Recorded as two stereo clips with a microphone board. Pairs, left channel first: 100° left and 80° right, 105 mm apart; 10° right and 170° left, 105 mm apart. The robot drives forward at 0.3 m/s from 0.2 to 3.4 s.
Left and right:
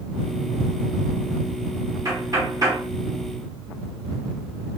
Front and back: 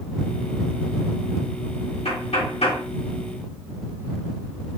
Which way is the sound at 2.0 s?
20° right.